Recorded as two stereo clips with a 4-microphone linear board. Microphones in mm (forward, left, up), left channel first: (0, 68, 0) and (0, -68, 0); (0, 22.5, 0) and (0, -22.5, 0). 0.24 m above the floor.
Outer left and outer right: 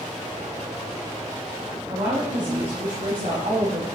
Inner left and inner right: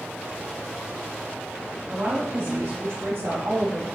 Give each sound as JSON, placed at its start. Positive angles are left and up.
{"t": 1.9, "sound": "a woman speaking", "side_deg": -45, "distance_m": 1.9}